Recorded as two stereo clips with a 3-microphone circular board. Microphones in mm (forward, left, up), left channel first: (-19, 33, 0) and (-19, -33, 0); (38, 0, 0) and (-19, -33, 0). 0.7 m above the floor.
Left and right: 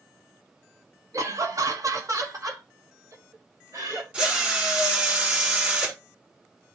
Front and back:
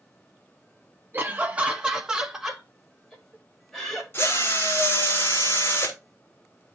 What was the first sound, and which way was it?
Laughter, 105° right.